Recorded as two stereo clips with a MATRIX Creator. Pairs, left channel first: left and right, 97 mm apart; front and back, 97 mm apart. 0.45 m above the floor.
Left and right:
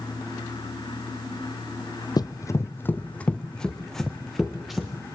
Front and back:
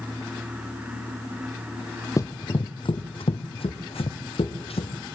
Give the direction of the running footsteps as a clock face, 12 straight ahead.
10 o'clock.